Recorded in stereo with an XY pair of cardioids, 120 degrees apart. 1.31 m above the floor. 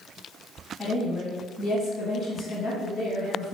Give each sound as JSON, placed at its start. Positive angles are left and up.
{"t": 0.8, "sound": "a woman speaking", "azimuth_deg": 35, "distance_m": 1.7}